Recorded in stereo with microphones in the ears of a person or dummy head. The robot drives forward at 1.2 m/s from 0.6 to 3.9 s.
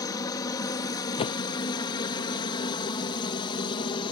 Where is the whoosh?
30° left (ahead or behind); by 1.5 s 20° left (ahead or behind).